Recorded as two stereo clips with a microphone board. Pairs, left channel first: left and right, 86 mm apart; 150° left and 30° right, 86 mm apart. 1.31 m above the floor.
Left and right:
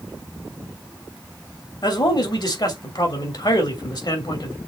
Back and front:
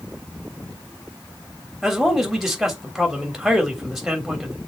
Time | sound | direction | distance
1.8 | a man speaking | 55° left | 3 m